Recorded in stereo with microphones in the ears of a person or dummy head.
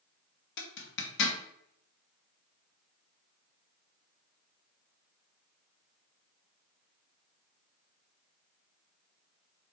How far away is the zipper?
About 1.0 m.